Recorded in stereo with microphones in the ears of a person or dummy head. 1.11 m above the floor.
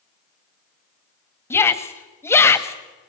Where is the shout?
15° left (ahead or behind), 1.4 m.